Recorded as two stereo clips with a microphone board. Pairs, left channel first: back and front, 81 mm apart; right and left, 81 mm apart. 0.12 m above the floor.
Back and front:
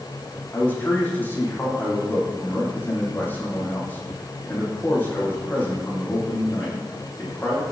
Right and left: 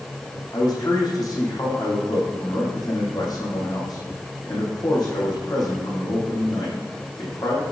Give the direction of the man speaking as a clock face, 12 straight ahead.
4 o'clock.